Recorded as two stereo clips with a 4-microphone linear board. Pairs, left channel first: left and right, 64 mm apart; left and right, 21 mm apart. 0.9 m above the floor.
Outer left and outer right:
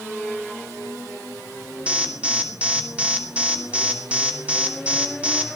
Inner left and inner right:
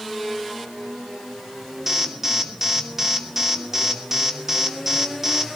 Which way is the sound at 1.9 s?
20° right (ahead or behind).